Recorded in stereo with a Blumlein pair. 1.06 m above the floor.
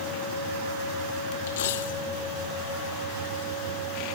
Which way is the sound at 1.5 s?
55° left.